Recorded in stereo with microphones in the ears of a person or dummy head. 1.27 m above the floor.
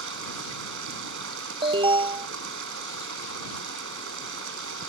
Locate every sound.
0.0 s running water: 70° right (ahead or behind)
1.6 s an alarm: 25° right (ahead or behind)